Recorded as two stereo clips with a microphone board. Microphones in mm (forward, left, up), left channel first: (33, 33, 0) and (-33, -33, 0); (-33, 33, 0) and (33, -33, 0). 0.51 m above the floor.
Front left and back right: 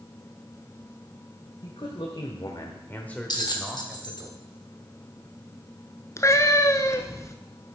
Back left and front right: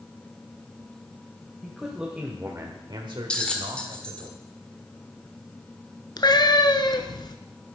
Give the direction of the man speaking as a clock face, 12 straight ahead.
10 o'clock.